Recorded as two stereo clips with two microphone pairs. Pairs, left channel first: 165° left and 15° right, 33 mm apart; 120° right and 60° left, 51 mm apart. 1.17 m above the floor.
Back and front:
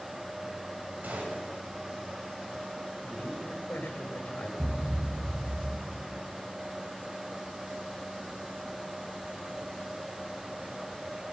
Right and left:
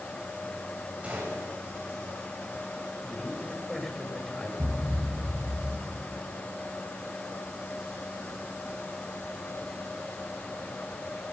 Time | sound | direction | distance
1.0 | a gunshot | straight ahead | 7.5 m
3.0 | a man speaking | 160° left | 6.5 m
4.6 | a thud | 55° left | 3.5 m